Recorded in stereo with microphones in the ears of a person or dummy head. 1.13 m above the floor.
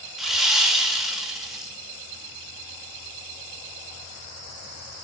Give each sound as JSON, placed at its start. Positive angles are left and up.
{"t": 0.2, "sound": "sawing", "side_deg": 0, "distance_m": 0.6}